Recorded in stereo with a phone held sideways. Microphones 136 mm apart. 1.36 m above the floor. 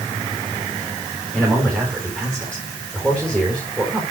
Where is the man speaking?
Centre (ahead or behind), 3.5 m.